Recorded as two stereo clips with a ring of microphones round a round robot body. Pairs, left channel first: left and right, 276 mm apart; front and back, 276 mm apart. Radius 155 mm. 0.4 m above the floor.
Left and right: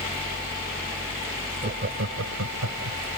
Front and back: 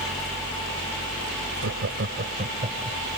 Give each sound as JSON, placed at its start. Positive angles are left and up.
{"t": 1.6, "sound": "laughter", "azimuth_deg": -145}